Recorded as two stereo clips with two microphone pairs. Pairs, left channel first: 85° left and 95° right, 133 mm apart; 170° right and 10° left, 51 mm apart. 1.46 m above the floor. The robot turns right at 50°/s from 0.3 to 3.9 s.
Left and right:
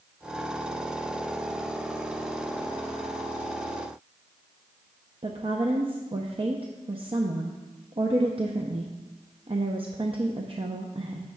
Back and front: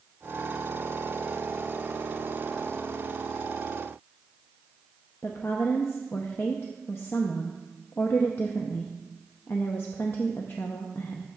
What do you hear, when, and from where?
5.2 s a woman speaking: 135° right, 0.7 m